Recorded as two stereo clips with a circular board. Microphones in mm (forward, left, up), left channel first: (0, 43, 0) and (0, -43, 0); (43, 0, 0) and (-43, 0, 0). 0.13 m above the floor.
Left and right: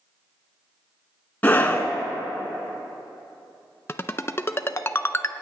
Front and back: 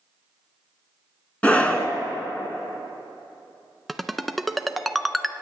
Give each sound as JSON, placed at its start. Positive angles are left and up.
{"t": 1.4, "sound": "a scream", "azimuth_deg": 50, "distance_m": 1.1}
{"t": 3.9, "sound": "a ringtone", "azimuth_deg": 85, "distance_m": 0.5}